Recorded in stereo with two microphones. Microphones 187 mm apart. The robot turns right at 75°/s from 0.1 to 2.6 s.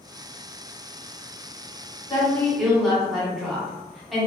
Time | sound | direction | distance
2.1 | a woman speaking | 145° left | 1.2 m